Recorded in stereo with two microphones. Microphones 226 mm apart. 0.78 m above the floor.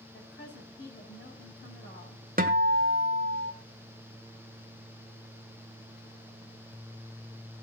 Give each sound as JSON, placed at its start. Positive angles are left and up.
{"t": 0.1, "sound": "a woman speaking", "side_deg": 50, "distance_m": 5.5}
{"t": 2.4, "sound": "a guitar", "side_deg": -40, "distance_m": 1.1}